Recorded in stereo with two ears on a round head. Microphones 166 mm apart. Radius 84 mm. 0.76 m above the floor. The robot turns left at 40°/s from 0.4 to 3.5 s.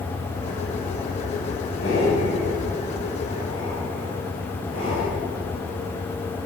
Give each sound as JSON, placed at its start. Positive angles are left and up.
{"t": 1.8, "sound": "breathing", "side_deg": 70, "distance_m": 6.0}